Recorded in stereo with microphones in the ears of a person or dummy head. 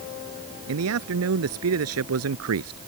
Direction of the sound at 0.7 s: 80° right.